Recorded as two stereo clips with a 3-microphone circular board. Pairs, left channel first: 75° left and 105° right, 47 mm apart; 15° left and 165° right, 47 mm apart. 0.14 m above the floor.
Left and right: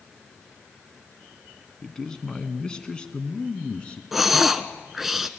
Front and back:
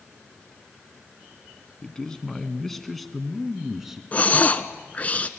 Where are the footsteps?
I don't hear footsteps.